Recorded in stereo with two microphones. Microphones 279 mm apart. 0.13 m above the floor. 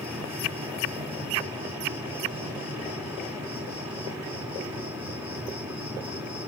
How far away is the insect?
About 3 m.